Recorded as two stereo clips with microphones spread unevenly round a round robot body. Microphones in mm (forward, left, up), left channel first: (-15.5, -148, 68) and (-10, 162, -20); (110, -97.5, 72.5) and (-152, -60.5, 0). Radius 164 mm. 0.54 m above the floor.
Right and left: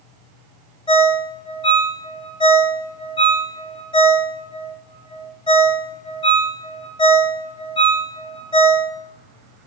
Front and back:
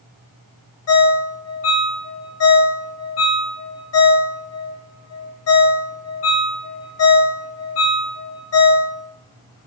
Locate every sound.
0.9 s a ringtone: 5° right, 0.8 m